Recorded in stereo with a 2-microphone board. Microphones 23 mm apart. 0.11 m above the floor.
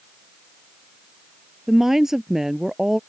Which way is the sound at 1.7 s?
20° right (ahead or behind).